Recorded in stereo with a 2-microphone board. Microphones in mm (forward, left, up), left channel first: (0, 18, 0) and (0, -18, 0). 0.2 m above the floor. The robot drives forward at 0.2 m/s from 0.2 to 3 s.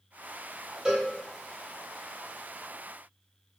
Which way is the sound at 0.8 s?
20° right (ahead or behind).